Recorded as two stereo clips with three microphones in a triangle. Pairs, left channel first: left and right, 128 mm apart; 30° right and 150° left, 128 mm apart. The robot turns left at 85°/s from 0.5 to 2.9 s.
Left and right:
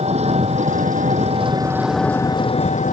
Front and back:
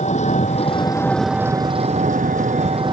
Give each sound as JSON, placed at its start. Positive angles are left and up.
{"t": 0.0, "sound": "an engine running", "azimuth_deg": -55}